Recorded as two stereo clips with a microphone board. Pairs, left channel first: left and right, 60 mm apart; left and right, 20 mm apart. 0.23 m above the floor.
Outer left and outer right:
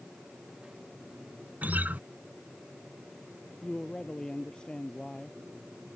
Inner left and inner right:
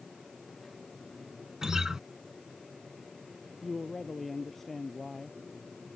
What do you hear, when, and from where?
1.6 s a guitar: 30° right (ahead or behind)
3.6 s a man speaking: 15° left (ahead or behind)